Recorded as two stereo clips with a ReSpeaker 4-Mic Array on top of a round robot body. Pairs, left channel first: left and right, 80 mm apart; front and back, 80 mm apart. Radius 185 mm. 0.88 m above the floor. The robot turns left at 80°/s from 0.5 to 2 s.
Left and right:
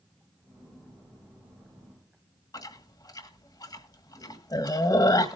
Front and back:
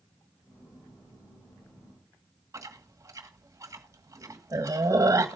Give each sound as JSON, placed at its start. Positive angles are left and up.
{"t": 2.5, "sound": "chewing", "azimuth_deg": 130, "distance_m": 1.5}